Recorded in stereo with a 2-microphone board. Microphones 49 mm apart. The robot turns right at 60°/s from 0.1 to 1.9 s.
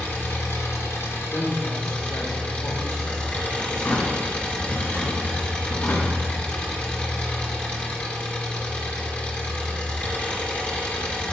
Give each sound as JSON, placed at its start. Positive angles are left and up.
{"t": 0.0, "sound": "an engine running", "azimuth_deg": 40, "distance_m": 1.7}
{"t": 1.3, "sound": "a woman speaking", "azimuth_deg": 60, "distance_m": 1.4}
{"t": 3.7, "sound": "a drawer", "side_deg": 45, "distance_m": 2.0}